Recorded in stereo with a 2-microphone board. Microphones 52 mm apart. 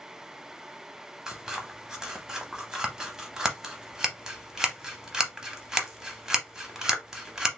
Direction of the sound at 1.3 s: 15° right (ahead or behind).